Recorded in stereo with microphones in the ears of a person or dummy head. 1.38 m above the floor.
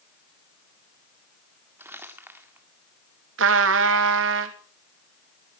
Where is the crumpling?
15° right (ahead or behind), 1.8 m.